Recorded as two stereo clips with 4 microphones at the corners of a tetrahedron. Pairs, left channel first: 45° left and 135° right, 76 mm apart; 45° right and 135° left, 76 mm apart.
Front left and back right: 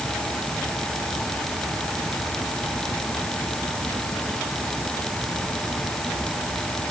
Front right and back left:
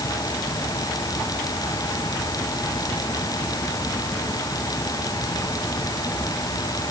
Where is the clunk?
No clunk in this recording.